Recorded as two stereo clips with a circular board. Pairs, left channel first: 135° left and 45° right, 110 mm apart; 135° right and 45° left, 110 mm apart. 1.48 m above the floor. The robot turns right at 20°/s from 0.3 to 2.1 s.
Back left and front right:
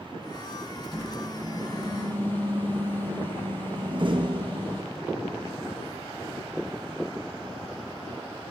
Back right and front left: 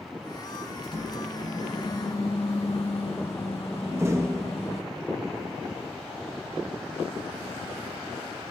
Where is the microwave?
Straight behind, 7.5 m; by 4.8 s 155° right, 7.5 m.